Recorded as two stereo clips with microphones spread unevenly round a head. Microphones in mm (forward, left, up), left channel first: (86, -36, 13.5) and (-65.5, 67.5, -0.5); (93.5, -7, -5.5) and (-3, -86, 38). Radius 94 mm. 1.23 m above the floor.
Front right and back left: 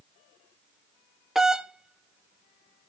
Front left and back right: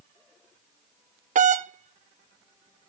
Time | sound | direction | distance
1.4 | a doorbell | 130° right | 0.8 m